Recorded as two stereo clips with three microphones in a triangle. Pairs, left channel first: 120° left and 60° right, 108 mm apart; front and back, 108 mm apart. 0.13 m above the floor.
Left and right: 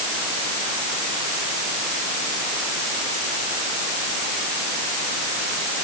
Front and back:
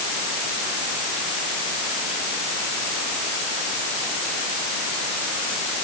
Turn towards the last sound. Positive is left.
No sound to turn to.